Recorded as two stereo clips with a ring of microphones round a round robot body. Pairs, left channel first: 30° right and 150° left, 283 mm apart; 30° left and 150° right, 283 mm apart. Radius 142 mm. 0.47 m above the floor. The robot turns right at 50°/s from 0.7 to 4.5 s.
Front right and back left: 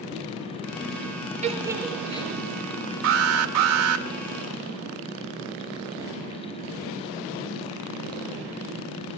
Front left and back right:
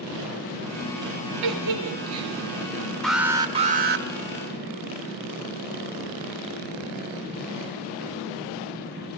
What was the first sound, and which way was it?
A giggle, 145° right.